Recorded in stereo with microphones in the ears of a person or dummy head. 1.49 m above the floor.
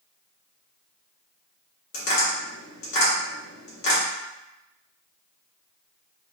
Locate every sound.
1.9 s tapping: 55° left (ahead or behind), 0.9 m